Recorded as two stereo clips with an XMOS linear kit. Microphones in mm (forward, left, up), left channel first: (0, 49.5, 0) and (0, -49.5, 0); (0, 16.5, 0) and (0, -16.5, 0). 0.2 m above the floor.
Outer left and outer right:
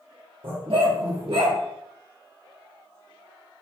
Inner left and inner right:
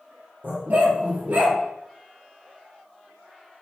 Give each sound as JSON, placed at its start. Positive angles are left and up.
{"t": 0.4, "sound": "a dog barking", "side_deg": -65, "distance_m": 2.0}